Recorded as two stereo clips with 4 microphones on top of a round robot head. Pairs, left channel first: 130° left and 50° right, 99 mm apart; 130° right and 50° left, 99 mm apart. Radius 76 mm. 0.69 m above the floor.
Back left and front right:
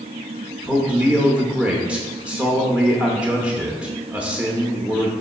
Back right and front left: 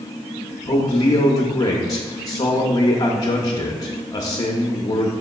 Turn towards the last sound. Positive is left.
turn(degrees=-120)